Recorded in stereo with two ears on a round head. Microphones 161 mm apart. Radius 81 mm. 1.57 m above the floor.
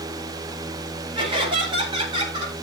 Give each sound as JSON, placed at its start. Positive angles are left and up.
{"t": 1.1, "sound": "laughter", "side_deg": -30, "distance_m": 10.0}